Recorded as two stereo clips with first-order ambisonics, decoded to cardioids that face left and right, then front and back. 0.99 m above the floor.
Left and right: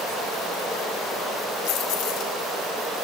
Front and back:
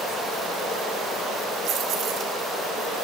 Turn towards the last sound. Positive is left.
turn(degrees=125)